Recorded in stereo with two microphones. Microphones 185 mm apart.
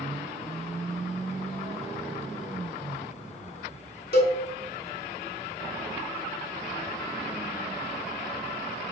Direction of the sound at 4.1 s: 60° left (ahead or behind).